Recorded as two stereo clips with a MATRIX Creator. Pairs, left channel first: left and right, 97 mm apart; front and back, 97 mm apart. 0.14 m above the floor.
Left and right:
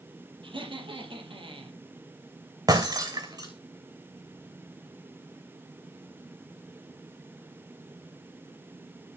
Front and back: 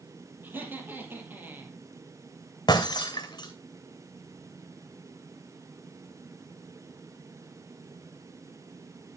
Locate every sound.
0.4 s laughter: 110° right, 4.5 m
2.7 s breaking glass: 45° right, 2.5 m